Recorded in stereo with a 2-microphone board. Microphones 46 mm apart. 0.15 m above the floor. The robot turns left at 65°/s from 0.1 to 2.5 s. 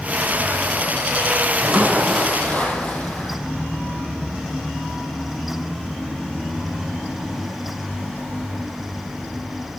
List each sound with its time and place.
1.5 s a splash: 145° right, 3.5 m; by 3.4 s 150° left, 3.5 m